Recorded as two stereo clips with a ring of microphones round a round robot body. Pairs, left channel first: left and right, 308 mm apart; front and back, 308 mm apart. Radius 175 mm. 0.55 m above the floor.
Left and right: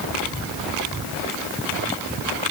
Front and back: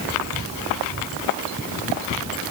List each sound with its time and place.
Only background noise.